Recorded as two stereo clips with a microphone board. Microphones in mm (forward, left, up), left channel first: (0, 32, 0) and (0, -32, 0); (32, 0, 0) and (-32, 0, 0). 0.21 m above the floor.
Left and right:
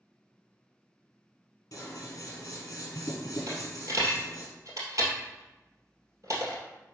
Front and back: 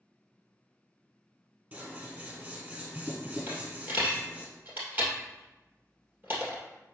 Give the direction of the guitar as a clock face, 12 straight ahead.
I don't hear a guitar.